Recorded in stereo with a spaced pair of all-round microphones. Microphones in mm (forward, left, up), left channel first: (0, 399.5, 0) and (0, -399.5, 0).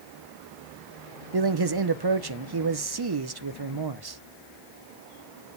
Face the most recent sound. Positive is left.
turn(degrees=-35)  # may be behind; listen again after turning